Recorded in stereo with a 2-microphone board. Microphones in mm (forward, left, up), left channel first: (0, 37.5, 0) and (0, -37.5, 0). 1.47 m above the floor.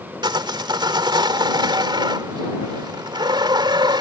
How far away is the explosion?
No explosion in this recording.